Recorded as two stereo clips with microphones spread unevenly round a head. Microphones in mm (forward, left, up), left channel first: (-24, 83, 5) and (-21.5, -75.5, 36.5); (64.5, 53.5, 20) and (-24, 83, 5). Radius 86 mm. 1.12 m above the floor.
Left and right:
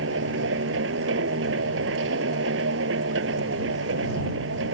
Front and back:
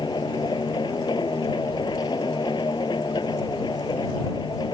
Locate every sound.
0.0 s a machine running: 85° right